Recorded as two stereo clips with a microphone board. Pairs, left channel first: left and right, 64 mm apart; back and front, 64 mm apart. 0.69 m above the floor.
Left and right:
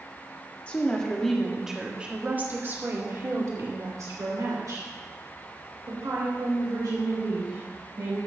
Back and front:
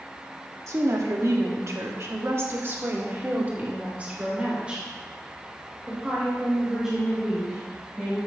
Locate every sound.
0.7 s a woman speaking: 25° left, 1.7 m; by 8.2 s 85° right, 5.5 m